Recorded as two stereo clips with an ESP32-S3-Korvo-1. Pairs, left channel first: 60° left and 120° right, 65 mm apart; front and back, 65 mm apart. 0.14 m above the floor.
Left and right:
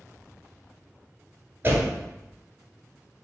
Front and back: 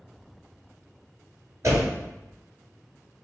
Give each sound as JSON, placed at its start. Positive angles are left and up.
{"t": 1.6, "sound": "a door slam", "azimuth_deg": -170, "distance_m": 1.4}